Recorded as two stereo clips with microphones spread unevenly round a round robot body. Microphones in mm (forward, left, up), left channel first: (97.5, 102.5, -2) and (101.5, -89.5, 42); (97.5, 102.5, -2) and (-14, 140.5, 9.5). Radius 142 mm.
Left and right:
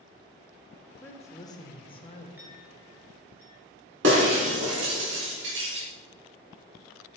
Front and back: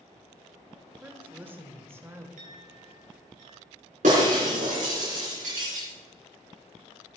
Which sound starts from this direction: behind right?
Breaking glass, at 4.0 s.